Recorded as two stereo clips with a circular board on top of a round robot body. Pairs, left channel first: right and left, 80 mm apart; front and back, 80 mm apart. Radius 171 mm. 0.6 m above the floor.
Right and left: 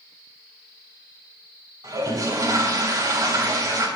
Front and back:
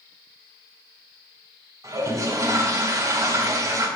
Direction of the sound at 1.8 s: 135° left.